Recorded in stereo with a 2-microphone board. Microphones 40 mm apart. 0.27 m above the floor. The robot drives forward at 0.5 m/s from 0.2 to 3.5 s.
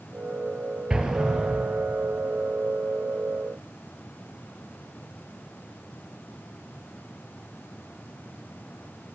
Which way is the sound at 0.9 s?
20° right (ahead or behind).